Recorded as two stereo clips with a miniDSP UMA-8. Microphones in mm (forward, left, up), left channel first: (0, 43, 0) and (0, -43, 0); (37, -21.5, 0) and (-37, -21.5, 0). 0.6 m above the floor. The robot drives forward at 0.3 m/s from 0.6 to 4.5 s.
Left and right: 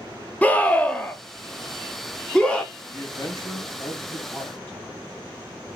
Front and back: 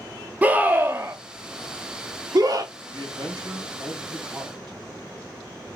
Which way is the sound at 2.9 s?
145° left.